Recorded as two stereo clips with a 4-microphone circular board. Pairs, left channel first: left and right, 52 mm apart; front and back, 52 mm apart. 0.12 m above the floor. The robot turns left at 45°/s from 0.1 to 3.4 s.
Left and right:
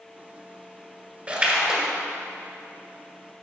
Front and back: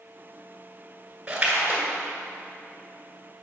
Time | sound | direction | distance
1.3 | a splash | 130° right | 1.6 m